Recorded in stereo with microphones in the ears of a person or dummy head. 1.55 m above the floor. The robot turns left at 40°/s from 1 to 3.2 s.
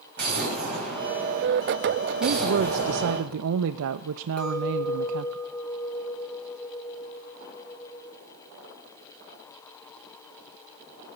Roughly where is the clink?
Centre.